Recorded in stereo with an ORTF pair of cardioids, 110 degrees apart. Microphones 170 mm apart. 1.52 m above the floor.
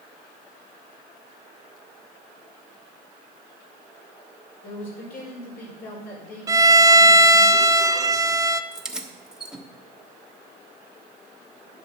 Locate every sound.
4.6 s a man speaking: 65° left, 5.5 m
6.5 s a violin: 20° right, 0.5 m
8.7 s keys jangling: 5° right, 1.1 m